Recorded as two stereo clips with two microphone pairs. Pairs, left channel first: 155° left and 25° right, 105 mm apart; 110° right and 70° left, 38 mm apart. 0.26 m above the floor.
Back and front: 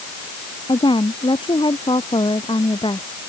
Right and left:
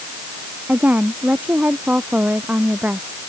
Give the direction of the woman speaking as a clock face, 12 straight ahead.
8 o'clock.